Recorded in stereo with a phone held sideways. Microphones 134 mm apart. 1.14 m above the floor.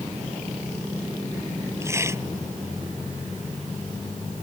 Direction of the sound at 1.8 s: 20° right (ahead or behind).